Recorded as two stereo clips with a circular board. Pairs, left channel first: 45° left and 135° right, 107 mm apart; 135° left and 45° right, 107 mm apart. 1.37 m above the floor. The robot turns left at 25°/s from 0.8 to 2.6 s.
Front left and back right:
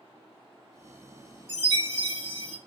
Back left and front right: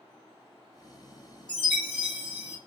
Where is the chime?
55° left, 2.5 m; by 2.6 s 30° left, 2.5 m.